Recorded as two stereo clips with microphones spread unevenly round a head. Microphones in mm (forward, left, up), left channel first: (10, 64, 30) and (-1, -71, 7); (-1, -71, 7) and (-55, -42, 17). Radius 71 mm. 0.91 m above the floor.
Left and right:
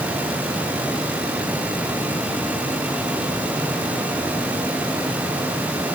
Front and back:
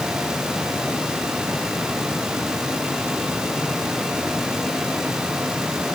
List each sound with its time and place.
Only background noise.